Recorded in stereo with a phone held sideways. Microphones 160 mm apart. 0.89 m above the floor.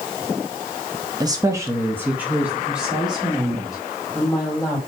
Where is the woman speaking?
25° right (ahead or behind), 0.7 m; by 4.8 s centre (ahead or behind), 3 m.